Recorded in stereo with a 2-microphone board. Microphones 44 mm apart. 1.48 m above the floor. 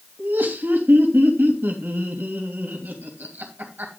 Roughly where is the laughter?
Right.